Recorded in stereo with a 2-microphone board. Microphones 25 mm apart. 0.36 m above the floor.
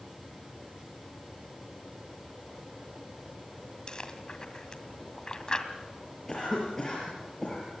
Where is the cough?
20° left (ahead or behind), 6.5 m.